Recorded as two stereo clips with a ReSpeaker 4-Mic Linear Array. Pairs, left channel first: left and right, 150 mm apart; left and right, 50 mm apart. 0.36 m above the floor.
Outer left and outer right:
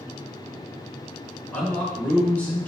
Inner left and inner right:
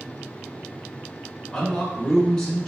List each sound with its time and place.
1.5 s a man speaking: 10° left (ahead or behind), 1.2 m